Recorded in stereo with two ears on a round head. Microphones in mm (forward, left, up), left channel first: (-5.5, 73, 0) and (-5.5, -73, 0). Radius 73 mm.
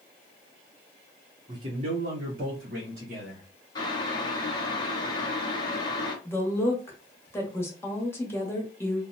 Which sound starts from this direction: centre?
A woman speaking, at 6.2 s.